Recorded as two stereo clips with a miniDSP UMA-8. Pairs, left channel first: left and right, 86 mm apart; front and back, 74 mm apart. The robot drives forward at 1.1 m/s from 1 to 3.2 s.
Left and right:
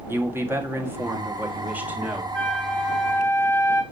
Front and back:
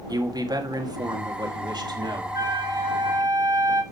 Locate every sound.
0.1 s a man speaking: 150° right, 1.8 m; by 2.2 s 165° right, 3 m
2.3 s a flute: 165° left, 1.2 m; by 3.8 s 170° left, 2 m